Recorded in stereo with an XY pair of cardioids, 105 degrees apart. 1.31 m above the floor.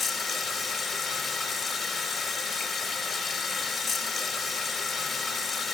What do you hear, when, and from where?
0.0 s running water: 50° left, 2.5 m